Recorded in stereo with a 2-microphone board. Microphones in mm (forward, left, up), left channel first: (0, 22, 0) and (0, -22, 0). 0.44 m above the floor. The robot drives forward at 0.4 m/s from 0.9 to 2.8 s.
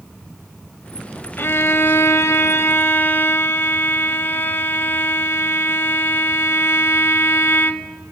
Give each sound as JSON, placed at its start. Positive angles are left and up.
{"t": 1.4, "sound": "a violin", "side_deg": 65, "distance_m": 0.6}